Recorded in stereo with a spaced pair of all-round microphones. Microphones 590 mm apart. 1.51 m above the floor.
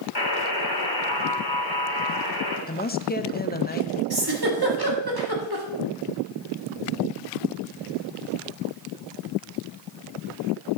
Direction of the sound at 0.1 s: 40° left (ahead or behind).